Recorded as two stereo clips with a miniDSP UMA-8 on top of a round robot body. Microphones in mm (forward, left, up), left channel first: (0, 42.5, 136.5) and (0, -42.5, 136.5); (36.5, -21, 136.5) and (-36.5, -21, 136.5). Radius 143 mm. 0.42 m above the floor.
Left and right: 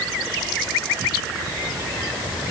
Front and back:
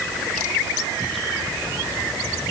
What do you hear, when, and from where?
Only background noise.